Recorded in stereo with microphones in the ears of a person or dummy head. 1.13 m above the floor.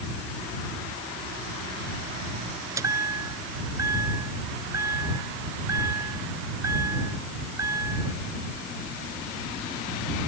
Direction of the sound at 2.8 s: 15° right (ahead or behind).